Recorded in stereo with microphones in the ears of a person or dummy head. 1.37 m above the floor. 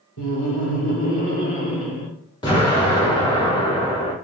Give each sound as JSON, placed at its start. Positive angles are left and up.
{"t": 0.2, "sound": "laughter", "side_deg": 65, "distance_m": 0.7}
{"t": 2.4, "sound": "an explosion", "side_deg": 20, "distance_m": 1.4}